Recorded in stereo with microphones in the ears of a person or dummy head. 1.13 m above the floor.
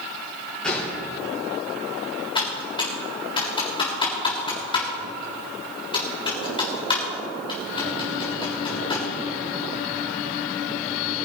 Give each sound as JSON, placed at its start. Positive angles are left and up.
{"t": 0.6, "sound": "a gunshot", "side_deg": 10, "distance_m": 5.0}
{"t": 2.4, "sound": "typing on a keyboard", "side_deg": 35, "distance_m": 3.5}